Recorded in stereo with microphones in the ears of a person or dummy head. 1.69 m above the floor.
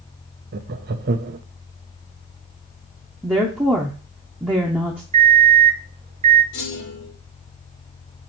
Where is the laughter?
45° right (ahead or behind), 0.7 m.